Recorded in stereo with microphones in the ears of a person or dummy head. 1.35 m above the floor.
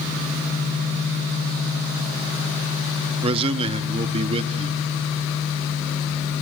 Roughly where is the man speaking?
Right.